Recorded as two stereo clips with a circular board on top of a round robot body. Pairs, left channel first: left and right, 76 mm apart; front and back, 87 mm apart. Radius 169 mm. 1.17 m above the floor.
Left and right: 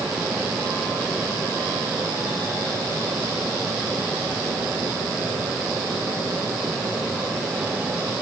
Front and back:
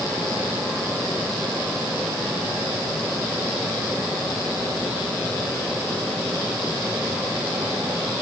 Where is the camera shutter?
No camera shutter in this recording.